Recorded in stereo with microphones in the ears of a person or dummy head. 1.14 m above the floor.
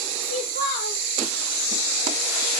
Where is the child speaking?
40° right (ahead or behind), 1.7 m.